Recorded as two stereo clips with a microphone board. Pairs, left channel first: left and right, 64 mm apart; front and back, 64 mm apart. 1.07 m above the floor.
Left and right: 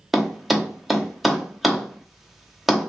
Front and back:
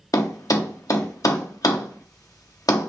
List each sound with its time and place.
0.1 s a thud: straight ahead, 0.8 m